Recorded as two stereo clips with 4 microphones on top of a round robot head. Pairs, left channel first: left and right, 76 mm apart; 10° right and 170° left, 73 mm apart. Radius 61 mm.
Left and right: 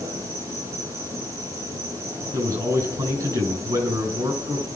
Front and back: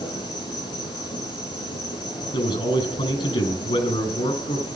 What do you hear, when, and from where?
0.0 s an insect: 35° right, 8 m
2.3 s a man speaking: 40° right, 6.5 m